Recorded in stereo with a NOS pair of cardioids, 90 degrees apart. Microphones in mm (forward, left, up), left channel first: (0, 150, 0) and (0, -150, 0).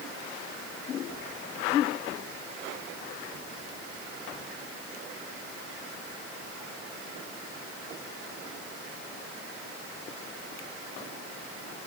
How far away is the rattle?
No rattle in this recording.